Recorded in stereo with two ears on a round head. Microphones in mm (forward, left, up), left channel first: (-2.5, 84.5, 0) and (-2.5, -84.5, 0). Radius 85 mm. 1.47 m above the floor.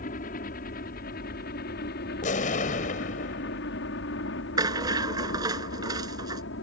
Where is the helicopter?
45° left (ahead or behind); by 6.6 s 70° left (ahead or behind).